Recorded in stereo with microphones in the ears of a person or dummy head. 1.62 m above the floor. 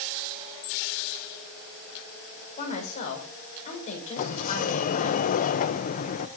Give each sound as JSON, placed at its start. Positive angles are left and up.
{"t": 2.6, "sound": "a woman speaking", "side_deg": 40, "distance_m": 7.5}
{"t": 4.2, "sound": "a sliding door", "side_deg": 45, "distance_m": 1.1}